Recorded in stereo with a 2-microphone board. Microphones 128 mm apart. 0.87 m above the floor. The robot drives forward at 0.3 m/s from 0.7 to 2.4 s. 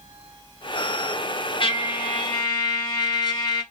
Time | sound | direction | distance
1.6 | a trumpet | 40° left (ahead or behind) | 0.6 m